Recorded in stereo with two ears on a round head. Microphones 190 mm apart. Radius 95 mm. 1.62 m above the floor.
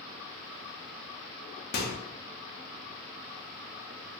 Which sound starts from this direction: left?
A microwave, at 1.7 s.